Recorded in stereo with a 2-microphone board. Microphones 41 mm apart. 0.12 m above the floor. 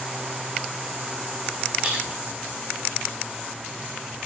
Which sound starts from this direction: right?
A splash, at 1.8 s.